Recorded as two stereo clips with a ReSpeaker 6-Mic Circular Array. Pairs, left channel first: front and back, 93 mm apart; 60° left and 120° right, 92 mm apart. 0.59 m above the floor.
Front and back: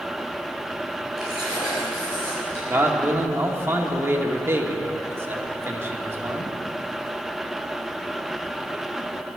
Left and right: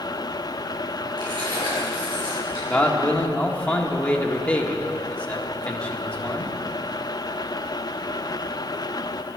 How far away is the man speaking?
About 1.6 m.